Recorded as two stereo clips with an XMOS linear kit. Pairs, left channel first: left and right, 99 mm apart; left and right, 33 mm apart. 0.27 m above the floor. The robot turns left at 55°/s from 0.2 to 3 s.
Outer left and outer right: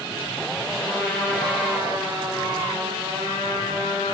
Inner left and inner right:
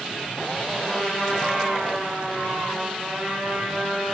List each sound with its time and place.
0.8 s a trumpet: 30° left, 7 m; by 4.1 s 90° right, 7 m